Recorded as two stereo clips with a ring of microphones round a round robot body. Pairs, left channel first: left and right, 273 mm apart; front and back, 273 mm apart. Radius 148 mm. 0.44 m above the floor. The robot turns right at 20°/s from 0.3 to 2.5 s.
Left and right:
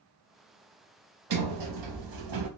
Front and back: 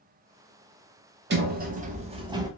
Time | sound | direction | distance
1.3 | a sliding door | 125° right | 0.6 m